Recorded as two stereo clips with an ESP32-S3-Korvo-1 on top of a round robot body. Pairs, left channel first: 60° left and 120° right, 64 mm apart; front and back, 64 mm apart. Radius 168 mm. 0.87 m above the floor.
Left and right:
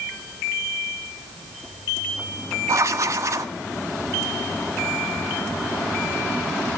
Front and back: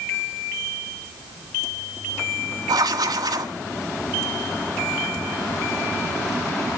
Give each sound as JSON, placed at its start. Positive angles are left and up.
{"t": 2.7, "sound": "writing", "azimuth_deg": -165, "distance_m": 1.6}